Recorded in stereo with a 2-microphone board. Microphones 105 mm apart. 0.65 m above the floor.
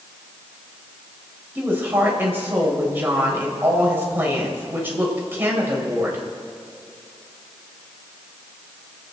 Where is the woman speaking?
20° right (ahead or behind), 4 m.